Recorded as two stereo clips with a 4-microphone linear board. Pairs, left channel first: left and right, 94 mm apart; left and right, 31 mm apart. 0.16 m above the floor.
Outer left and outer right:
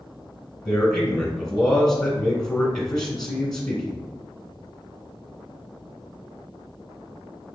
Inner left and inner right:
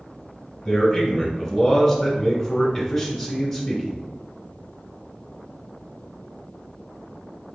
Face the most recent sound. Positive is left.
turn(degrees=5)  # may be behind; listen again after turning